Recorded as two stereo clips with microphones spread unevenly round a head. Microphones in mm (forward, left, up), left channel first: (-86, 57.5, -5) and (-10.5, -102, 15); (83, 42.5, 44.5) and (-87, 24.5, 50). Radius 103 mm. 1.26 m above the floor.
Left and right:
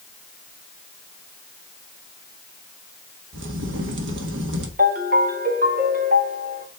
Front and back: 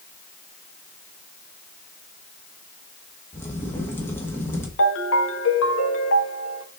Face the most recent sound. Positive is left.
turn(degrees=-10)